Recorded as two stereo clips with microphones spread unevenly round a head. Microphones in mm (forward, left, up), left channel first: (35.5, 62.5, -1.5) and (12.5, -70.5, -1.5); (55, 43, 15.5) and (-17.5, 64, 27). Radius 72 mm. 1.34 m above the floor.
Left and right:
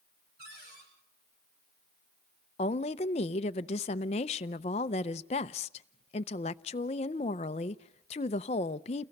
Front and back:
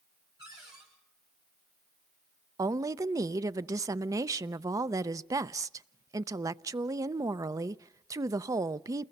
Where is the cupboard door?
130° right, 8 m.